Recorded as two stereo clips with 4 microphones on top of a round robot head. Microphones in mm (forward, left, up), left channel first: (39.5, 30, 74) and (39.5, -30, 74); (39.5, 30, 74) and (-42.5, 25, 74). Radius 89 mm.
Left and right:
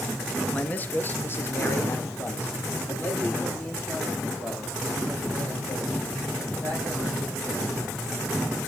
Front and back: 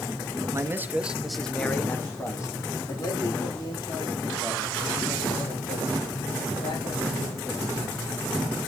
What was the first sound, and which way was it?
A man speaking, 145° left.